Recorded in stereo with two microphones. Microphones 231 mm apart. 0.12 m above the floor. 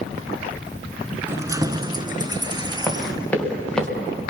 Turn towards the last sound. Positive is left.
turn(degrees=5)  # may be behind; listen again after turning